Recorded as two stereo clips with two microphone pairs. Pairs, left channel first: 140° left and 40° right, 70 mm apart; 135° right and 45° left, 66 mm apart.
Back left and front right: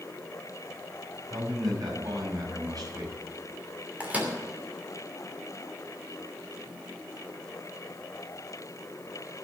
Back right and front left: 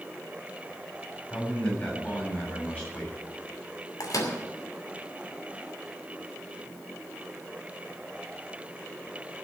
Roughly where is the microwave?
Right.